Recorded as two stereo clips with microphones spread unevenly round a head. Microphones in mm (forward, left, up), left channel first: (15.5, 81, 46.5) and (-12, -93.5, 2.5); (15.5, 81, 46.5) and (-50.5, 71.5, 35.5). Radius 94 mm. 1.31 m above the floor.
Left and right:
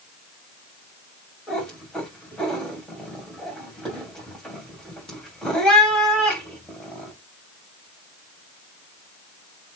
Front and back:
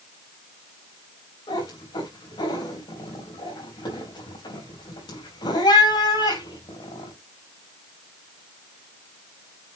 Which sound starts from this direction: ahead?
A cat meowing, at 1.5 s.